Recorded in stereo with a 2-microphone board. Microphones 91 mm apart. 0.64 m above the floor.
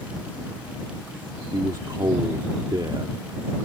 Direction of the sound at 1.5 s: 50° right (ahead or behind).